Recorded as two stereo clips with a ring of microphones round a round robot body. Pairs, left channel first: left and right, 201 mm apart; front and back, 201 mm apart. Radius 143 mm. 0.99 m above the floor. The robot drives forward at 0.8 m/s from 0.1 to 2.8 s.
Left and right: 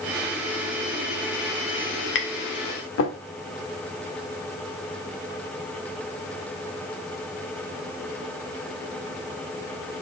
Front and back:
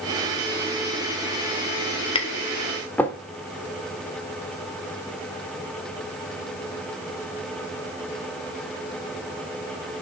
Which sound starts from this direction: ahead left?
Tapping, at 2.1 s.